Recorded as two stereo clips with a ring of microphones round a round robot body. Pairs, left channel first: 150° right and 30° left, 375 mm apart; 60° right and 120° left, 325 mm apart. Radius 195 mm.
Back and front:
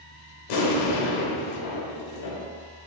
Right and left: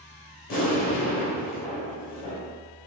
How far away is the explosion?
About 0.8 m.